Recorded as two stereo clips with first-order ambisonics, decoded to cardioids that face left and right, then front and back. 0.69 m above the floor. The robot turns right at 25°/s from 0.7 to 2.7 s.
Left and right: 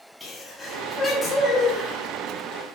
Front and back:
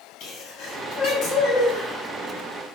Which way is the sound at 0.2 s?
5° left.